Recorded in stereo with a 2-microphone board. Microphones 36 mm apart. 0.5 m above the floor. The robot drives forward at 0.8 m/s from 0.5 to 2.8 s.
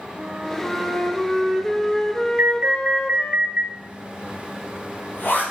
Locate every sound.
0.2 s a flute: 10° left (ahead or behind), 2 m; by 3.4 s 25° left (ahead or behind), 0.7 m
2.4 s an alarm: 65° right (ahead or behind), 0.8 m; by 3.6 s 55° right (ahead or behind), 0.8 m
3.7 s a zipper: 90° left, 5 m